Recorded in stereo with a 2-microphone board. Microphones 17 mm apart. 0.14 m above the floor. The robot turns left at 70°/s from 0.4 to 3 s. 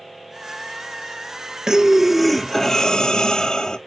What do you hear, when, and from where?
1.7 s breathing: 135° right, 0.7 m; by 3.8 s 130° left, 0.7 m